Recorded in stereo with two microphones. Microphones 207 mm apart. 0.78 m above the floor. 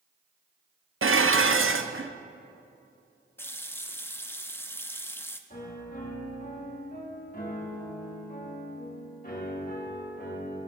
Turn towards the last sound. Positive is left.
turn(degrees=40)  # may be behind; listen again after turning